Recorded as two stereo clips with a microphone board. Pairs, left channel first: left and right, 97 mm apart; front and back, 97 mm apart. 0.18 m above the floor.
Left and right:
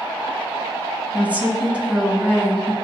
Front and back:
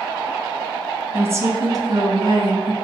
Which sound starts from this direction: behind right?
A woman speaking, at 1.1 s.